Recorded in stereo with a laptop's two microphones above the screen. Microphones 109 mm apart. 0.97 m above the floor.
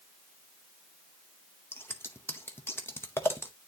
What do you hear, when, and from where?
1.7 s scissors: 20° left (ahead or behind), 0.7 m